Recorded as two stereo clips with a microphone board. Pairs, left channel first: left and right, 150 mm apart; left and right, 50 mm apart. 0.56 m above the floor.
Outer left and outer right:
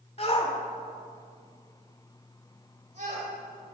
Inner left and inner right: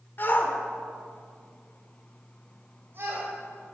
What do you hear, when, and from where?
0.2 s a shout: 45° left (ahead or behind), 1.7 m; by 3.3 s 55° right (ahead or behind), 3 m